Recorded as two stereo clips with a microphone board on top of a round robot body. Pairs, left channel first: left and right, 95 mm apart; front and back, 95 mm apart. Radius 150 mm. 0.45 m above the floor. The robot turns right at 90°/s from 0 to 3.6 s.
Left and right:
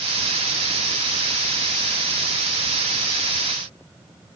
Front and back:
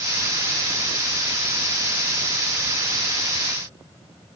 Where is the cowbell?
No cowbell in this recording.